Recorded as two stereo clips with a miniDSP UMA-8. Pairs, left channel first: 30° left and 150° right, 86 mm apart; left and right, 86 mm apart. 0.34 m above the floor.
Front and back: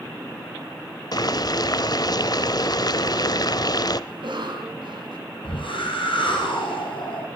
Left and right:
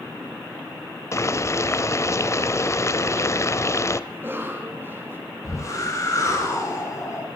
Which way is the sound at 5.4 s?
40° left.